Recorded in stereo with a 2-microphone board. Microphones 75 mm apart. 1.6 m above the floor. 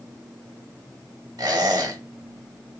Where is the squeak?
60° right (ahead or behind), 2.0 m.